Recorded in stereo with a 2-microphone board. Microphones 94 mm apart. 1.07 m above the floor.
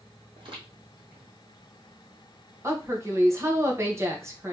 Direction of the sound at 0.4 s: 65° right (ahead or behind).